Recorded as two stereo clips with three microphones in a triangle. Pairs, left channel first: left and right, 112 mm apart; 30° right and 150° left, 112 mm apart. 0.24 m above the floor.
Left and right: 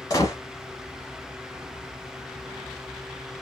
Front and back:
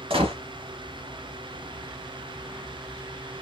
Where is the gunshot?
140° left, 0.9 m.